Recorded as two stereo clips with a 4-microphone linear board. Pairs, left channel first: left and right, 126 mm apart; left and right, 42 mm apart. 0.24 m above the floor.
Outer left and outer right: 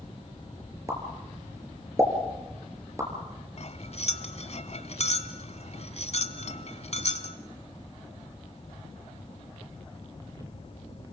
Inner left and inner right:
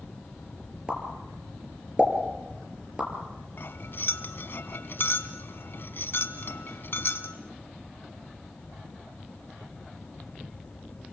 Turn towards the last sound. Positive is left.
turn(degrees=60)  # may be behind; listen again after turning